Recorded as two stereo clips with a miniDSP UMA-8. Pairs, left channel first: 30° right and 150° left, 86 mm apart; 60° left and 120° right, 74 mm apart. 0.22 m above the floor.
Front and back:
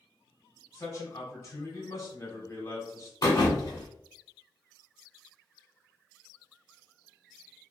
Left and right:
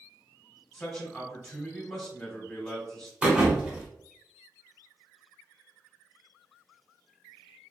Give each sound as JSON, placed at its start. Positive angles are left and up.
{"t": 0.7, "sound": "a man speaking", "azimuth_deg": -25, "distance_m": 1.2}
{"t": 3.2, "sound": "a thud", "azimuth_deg": -50, "distance_m": 1.0}